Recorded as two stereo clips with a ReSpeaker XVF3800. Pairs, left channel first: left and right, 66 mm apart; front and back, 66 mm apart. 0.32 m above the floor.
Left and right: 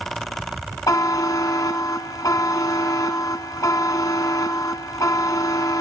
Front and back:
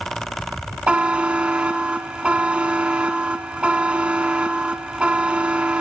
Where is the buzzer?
110° left, 1.1 m.